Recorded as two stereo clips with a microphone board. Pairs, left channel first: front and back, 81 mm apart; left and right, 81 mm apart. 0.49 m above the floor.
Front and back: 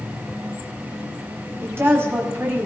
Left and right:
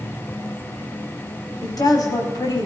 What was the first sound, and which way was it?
A woman speaking, 120° left.